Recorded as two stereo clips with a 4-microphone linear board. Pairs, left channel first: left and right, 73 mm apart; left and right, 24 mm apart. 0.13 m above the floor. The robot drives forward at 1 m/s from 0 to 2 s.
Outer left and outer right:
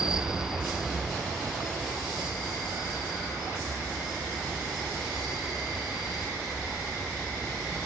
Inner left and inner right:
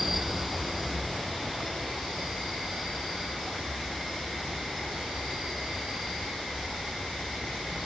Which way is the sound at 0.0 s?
10° right (ahead or behind).